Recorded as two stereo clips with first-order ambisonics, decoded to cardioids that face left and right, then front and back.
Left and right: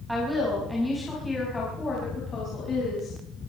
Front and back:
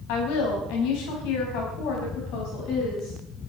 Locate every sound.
0.1 s a woman speaking: straight ahead, 5 m; by 3.1 s 35° left, 5 m